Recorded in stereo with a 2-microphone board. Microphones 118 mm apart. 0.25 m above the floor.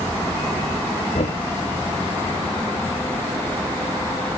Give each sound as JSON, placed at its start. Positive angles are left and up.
{"t": 1.1, "sound": "knocking", "side_deg": 80}